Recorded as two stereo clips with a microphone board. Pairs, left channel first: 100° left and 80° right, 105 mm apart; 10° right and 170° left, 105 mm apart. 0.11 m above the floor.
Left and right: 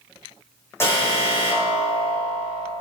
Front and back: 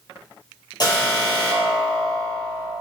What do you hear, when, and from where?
0.8 s an alarm: 35° left, 5 m